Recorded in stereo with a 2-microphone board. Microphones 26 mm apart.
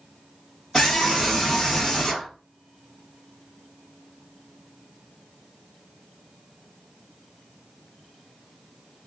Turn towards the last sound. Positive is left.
turn(degrees=5)  # may be behind; listen again after turning